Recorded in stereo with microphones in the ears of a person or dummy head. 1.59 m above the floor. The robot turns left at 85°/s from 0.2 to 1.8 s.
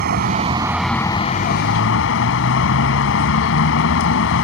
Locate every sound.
0.0 s a vehicle: 125° right; by 4.5 s 100° left